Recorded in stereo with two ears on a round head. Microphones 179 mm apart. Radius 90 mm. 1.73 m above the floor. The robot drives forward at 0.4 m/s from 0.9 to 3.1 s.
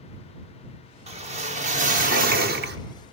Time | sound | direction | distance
1.1 | a whoosh | 30° right (ahead or behind) | 1.4 m